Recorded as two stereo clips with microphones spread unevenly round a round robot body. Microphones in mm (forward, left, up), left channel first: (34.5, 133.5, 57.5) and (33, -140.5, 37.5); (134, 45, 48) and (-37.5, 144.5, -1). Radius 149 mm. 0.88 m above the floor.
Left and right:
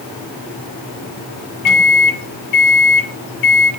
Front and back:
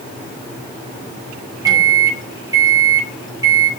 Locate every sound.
1.6 s a microwave: 80° left, 2.5 m